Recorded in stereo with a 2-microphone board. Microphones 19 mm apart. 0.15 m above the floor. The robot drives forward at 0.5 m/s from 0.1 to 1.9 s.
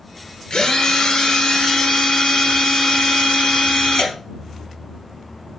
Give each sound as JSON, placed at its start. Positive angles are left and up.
{"t": 0.5, "sound": "a drill", "side_deg": 50, "distance_m": 2.0}